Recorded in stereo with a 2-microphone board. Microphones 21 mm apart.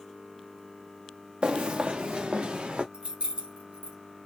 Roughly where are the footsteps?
Right.